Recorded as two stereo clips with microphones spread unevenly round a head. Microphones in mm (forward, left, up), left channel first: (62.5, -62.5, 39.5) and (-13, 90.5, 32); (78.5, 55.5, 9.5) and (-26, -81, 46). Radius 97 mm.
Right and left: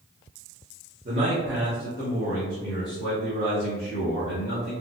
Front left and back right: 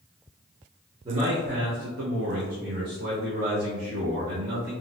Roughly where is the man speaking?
Behind.